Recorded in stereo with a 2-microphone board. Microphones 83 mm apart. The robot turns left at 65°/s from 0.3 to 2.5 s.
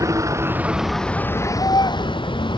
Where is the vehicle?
40° right (ahead or behind); by 2.6 s 75° left (ahead or behind).